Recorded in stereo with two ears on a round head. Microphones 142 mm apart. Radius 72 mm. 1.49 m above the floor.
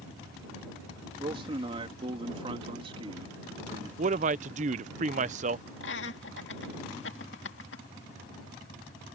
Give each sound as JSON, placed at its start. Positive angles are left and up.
{"t": 1.2, "sound": "a man speaking", "side_deg": -35}
{"t": 4.0, "sound": "a man speaking", "side_deg": -50}
{"t": 5.8, "sound": "laughter", "side_deg": 80}